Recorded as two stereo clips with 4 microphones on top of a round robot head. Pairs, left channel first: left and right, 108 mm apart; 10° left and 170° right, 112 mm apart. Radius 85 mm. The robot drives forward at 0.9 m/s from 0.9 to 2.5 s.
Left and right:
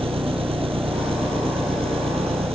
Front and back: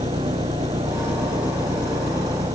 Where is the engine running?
55° right; by 2.6 s 60° right.